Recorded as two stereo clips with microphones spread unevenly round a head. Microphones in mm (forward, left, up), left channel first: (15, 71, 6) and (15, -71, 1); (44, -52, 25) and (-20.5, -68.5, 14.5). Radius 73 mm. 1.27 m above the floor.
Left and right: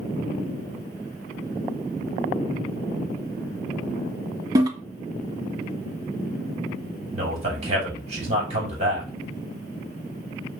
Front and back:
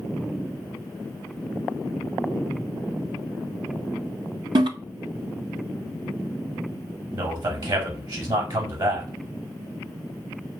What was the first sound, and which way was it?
A toilet flushing, 160° right.